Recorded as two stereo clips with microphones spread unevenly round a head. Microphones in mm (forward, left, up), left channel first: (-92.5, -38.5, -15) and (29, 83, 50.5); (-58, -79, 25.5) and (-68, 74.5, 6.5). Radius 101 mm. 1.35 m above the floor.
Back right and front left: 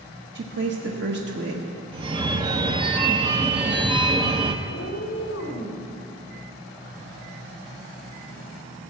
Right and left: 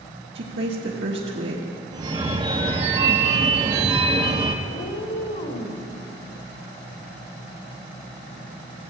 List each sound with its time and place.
0.3 s a woman speaking: 55° left, 1.3 m
1.9 s a phone ringing: 30° left, 0.6 m
4.7 s a cat meowing: 95° right, 1.7 m